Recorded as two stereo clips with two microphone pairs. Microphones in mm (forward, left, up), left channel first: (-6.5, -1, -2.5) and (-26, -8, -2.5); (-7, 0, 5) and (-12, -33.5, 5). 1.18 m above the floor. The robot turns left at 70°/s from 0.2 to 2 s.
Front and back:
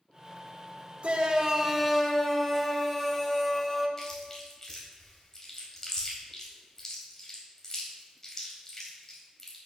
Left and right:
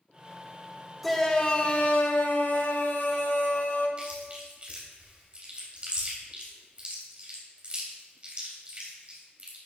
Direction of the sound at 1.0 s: 170° left.